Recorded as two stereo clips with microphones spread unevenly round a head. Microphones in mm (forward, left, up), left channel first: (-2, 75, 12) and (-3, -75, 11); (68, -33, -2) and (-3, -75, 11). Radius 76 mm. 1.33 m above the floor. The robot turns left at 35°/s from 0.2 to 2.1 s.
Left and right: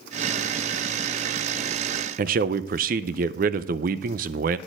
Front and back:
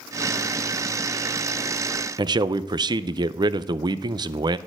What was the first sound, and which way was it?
A man speaking, 125° right.